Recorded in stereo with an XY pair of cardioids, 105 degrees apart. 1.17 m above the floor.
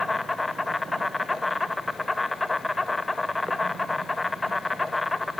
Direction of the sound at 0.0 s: 20° left.